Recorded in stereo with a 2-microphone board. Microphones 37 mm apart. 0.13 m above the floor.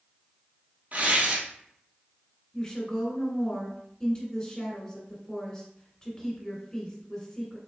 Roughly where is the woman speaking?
Left.